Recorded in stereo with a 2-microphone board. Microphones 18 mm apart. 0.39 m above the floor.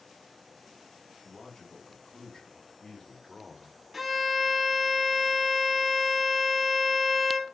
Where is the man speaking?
65° left (ahead or behind), 3 m; by 3.8 s 5° left (ahead or behind), 1.3 m.